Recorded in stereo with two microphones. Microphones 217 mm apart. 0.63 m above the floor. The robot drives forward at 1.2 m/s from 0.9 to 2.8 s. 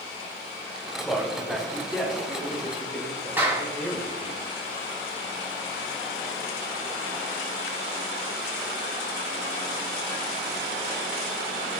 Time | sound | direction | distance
1.0 | a man speaking | centre (ahead or behind) | 4 m
3.4 | a clap | 10° right (ahead or behind) | 4 m